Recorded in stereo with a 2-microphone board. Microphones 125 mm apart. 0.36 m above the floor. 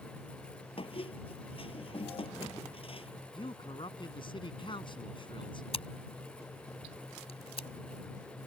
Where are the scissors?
50° left (ahead or behind).